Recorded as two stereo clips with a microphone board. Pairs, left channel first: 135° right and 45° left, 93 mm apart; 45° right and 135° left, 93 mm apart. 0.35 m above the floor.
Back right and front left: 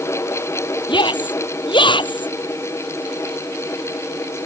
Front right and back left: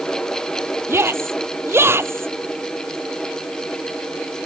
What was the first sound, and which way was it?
A shout, 165° right.